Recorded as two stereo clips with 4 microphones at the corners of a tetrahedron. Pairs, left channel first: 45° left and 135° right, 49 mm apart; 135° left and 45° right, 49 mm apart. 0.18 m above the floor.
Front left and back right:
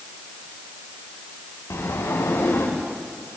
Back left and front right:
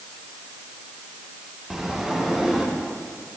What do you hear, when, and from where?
1.7 s a sliding door: 40° left, 6.5 m